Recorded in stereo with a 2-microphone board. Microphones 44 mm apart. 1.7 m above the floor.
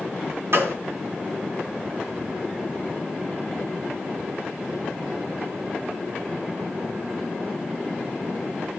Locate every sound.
0.5 s a gunshot: 65° right (ahead or behind), 3.5 m